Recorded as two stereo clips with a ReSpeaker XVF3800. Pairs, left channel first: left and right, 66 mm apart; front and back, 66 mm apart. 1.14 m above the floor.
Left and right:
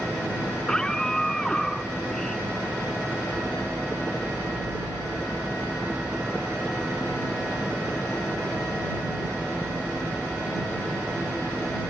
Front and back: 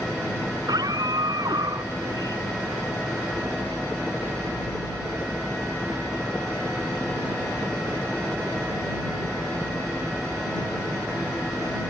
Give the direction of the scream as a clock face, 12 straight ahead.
6 o'clock.